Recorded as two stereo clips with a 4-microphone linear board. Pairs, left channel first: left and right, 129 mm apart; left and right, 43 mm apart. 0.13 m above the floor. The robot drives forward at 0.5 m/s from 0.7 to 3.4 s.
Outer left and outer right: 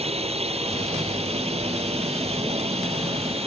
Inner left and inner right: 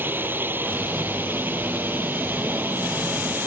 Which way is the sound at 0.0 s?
55° right (ahead or behind).